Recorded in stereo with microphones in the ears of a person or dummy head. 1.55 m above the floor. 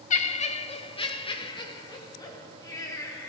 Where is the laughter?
40° left (ahead or behind), 1.1 m; by 3.3 s 15° left (ahead or behind), 3.5 m.